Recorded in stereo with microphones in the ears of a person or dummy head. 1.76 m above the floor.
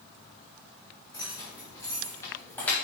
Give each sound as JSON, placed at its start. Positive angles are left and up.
{"t": 1.1, "sound": "keys jangling", "side_deg": 30, "distance_m": 3.0}